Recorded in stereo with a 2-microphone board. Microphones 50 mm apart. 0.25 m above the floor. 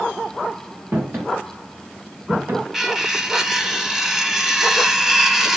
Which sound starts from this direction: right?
Footsteps, at 0.9 s.